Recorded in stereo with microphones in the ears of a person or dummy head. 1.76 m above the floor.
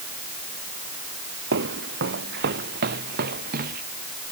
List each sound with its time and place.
1.5 s footsteps: 55° right (ahead or behind); by 3.8 s 45° right (ahead or behind)